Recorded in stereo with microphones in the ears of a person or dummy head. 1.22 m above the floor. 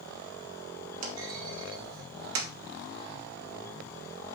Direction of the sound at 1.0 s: 70° right (ahead or behind).